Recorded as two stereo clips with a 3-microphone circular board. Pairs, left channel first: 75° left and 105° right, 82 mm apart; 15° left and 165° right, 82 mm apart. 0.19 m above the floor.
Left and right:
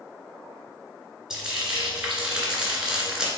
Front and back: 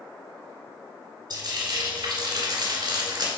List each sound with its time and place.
1.3 s frying: 175° left, 2 m